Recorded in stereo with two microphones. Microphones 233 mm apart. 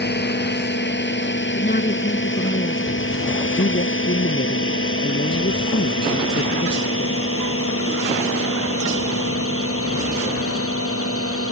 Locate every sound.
0.0 s a drone: 50° left (ahead or behind); by 11.5 s 80° left
1.6 s a woman speaking: 45° left (ahead or behind)
3.6 s a woman speaking: 55° left (ahead or behind)